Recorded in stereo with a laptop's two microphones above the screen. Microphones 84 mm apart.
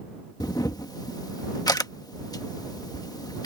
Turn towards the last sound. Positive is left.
turn(degrees=45)  # may be behind; listen again after turning